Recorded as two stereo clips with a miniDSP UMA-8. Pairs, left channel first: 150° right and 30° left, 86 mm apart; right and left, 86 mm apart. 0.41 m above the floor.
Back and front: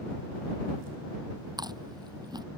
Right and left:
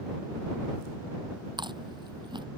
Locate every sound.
1.6 s chewing: 65° left